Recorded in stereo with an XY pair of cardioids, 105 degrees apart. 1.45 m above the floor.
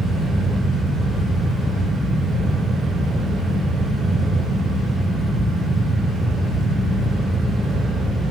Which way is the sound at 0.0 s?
40° right.